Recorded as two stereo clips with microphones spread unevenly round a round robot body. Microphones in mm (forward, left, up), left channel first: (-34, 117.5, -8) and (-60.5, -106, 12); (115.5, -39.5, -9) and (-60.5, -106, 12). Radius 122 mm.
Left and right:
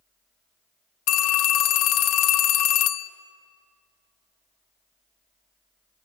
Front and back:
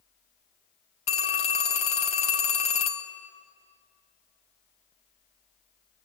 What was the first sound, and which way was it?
A phone ringing, 85° left.